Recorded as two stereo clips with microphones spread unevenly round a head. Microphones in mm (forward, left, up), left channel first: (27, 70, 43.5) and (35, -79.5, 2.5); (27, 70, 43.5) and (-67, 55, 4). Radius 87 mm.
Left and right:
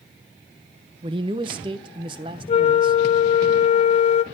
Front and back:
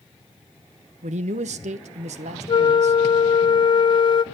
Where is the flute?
45° left, 1.0 m.